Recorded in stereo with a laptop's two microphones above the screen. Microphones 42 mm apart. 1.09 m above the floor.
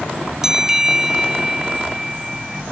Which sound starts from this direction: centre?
A bell, at 0.4 s.